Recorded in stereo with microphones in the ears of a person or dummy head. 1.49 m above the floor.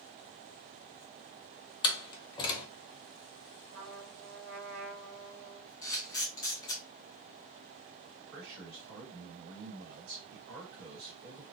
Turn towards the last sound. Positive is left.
turn(degrees=-60)  # may be behind; listen again after turning